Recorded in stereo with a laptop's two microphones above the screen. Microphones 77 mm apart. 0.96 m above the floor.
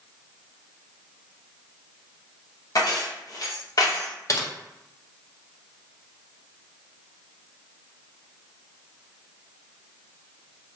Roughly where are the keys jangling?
Left.